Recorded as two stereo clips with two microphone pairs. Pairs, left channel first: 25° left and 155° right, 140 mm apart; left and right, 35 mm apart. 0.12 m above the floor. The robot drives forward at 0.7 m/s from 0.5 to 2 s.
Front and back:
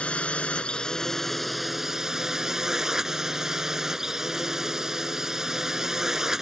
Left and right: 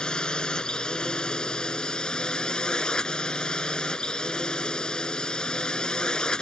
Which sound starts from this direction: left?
A drone, at 0.0 s.